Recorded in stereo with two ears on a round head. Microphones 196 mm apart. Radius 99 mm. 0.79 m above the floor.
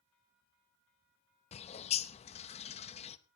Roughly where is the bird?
Left.